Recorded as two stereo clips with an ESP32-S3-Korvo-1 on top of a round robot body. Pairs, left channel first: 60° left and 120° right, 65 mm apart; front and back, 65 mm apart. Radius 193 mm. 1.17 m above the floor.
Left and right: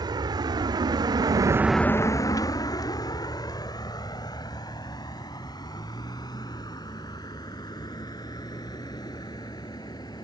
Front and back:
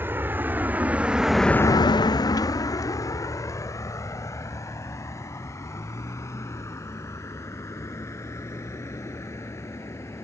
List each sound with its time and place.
0.0 s a vehicle: 120° right; by 10.2 s 50° left